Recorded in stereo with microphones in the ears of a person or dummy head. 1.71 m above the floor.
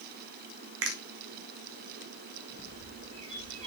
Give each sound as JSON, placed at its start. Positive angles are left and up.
{"t": 0.8, "sound": "a finger snap", "side_deg": -65, "distance_m": 1.1}
{"t": 2.5, "sound": "a bird", "side_deg": -35, "distance_m": 1.9}